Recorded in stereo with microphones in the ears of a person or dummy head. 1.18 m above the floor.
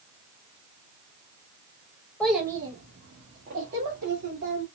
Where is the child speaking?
5° left (ahead or behind), 0.6 m; by 4.7 s 65° right (ahead or behind), 2 m.